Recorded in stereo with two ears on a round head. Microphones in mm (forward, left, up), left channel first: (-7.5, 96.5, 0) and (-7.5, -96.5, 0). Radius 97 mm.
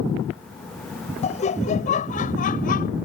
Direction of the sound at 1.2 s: 30° left (ahead or behind).